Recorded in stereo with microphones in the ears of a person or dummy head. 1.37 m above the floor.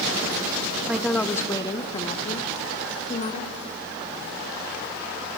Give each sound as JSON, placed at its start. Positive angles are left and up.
{"t": 0.8, "sound": "a woman speaking", "side_deg": -15, "distance_m": 0.8}